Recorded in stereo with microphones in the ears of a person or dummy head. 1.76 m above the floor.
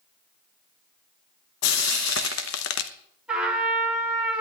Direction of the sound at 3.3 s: 5° right (ahead or behind).